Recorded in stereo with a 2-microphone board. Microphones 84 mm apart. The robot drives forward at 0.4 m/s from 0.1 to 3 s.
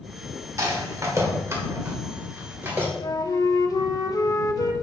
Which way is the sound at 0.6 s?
40° right (ahead or behind).